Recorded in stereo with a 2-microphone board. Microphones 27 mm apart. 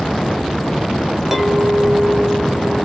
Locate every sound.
1.3 s a clink: 15° right (ahead or behind), 0.7 m